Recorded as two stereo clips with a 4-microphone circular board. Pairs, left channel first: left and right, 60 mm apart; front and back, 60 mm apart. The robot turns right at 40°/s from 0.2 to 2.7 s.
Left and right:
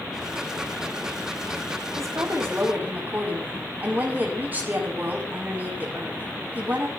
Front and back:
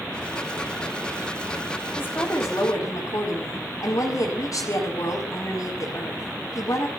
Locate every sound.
2.0 s a woman speaking: 60° right, 6 m; by 6.9 s 30° right, 6 m